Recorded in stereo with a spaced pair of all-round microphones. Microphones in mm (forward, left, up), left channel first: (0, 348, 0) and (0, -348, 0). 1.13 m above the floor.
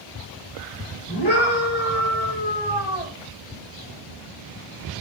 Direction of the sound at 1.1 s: 35° left (ahead or behind).